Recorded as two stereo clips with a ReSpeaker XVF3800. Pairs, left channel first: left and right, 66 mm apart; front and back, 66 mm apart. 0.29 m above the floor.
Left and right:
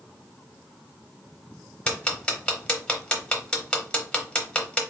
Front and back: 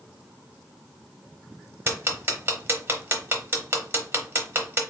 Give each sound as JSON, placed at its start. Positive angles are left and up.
{"t": 1.9, "sound": "ticking", "azimuth_deg": 155, "distance_m": 0.8}